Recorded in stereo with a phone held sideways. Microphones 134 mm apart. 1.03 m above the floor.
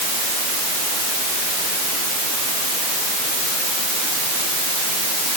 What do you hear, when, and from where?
Only background noise.